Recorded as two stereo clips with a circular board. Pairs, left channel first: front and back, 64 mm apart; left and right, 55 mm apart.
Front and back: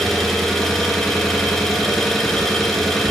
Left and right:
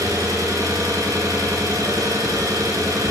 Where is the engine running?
90° right, 2.5 m.